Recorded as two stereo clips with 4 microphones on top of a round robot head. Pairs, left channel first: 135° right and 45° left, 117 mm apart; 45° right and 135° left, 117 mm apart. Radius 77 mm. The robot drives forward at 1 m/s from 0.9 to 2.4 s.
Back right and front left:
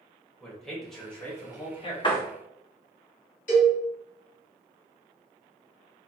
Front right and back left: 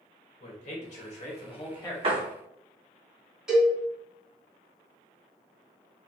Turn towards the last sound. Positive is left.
turn(degrees=-140)